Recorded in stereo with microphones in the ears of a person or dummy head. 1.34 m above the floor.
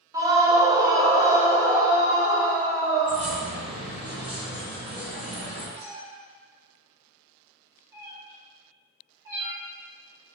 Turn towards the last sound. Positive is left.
turn(degrees=-10)  # may be behind; listen again after turning